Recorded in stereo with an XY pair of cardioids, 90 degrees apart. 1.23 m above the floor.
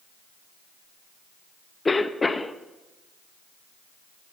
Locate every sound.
1.9 s a cough: 25° left, 1.0 m